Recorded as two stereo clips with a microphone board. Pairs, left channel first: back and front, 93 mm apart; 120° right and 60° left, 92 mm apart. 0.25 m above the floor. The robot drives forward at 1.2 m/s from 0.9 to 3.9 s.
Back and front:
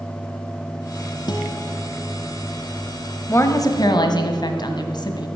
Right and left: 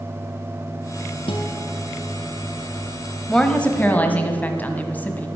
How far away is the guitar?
About 2 m.